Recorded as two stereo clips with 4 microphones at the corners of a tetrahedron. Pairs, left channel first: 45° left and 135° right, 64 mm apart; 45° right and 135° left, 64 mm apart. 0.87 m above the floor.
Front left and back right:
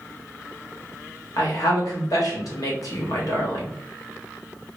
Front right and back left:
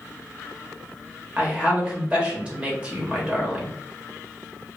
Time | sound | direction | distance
1.4 | a woman speaking | 65° left | 1.2 m